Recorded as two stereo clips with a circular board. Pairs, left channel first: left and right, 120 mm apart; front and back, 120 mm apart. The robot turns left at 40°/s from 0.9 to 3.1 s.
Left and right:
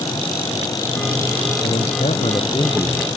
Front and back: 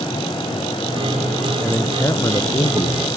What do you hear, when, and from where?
1.6 s a man speaking: 85° left; by 3.1 s 30° left